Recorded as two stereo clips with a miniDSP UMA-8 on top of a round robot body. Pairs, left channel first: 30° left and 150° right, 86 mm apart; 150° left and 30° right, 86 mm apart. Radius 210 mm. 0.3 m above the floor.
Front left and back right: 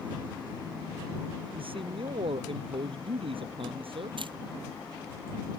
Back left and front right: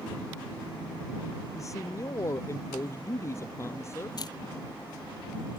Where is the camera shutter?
170° right.